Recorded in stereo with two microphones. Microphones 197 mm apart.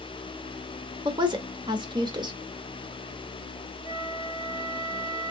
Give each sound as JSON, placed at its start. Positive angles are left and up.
{"t": 1.1, "sound": "a woman speaking", "side_deg": -20, "distance_m": 1.0}
{"t": 3.8, "sound": "a flute", "side_deg": -25, "distance_m": 2.5}